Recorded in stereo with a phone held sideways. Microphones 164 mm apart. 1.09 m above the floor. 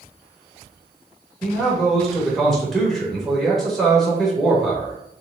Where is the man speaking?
Centre (ahead or behind), 1.6 m.